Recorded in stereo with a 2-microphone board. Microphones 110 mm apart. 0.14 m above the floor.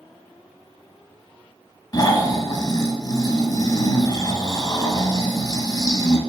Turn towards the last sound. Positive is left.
turn(degrees=30)  # may be behind; listen again after turning